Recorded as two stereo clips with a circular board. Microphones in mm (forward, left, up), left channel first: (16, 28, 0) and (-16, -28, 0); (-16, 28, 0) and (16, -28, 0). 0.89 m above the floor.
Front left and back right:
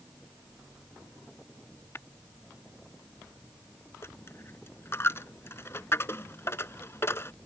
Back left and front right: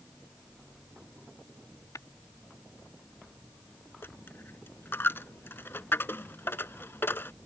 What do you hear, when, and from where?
1.9 s tapping: 105° left
4.0 s a dropped coin: 80° left